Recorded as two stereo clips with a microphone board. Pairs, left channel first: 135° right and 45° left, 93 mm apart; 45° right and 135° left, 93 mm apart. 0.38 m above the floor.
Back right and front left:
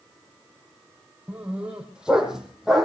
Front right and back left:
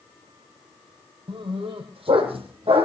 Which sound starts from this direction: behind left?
A dog barking, at 1.3 s.